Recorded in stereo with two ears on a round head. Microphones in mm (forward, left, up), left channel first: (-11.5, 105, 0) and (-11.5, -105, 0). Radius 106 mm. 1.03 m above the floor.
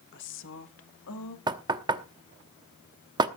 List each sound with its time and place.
0.1 s a woman speaking: 50° left (ahead or behind), 1.3 m; by 1.4 s 70° left (ahead or behind), 2.5 m
1.5 s knocking: 20° right (ahead or behind), 0.9 m